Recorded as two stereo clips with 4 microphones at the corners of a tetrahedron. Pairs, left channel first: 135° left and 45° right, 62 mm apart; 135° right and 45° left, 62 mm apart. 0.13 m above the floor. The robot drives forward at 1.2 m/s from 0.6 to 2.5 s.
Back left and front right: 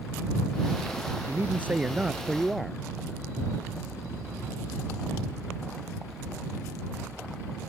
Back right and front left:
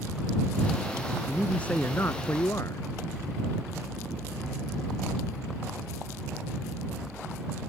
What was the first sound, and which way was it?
A man speaking, 60° right.